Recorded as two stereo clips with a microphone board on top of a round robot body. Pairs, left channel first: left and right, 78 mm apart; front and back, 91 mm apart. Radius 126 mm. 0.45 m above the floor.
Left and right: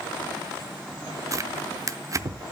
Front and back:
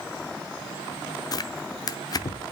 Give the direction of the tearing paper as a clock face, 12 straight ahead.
1 o'clock.